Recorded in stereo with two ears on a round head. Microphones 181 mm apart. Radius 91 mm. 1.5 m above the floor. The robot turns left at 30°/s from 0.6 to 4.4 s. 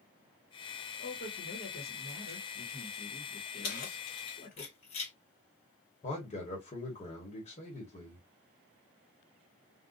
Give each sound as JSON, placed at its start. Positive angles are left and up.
{"t": 1.0, "sound": "a man speaking", "azimuth_deg": 140, "distance_m": 1.2}
{"t": 3.6, "sound": "keys jangling", "side_deg": 45, "distance_m": 1.2}
{"t": 6.0, "sound": "a man speaking", "side_deg": 30, "distance_m": 1.3}